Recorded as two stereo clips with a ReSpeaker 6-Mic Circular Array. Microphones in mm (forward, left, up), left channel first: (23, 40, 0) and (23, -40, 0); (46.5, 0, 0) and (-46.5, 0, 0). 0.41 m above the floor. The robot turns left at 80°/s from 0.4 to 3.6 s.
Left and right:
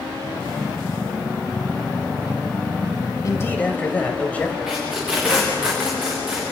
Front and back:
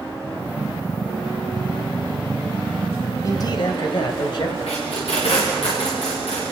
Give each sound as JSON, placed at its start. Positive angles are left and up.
{"t": 3.2, "sound": "a man speaking", "azimuth_deg": 50, "distance_m": 2.5}
{"t": 4.7, "sound": "tape being pulled", "azimuth_deg": -5, "distance_m": 8.0}